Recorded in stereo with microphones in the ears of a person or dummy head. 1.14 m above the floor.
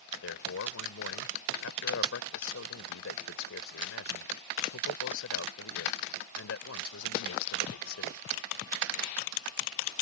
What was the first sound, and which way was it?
A man speaking, 70° left (ahead or behind).